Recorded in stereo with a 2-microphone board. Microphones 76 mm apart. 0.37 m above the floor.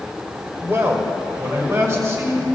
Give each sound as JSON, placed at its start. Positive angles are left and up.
{"t": 0.6, "sound": "a man speaking", "side_deg": -30, "distance_m": 1.5}